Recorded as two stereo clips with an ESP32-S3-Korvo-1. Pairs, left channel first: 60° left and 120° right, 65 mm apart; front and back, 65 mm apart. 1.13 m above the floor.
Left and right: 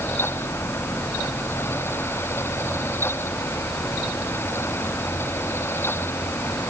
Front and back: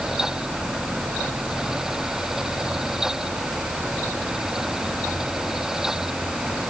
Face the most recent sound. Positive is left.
No sound to turn to.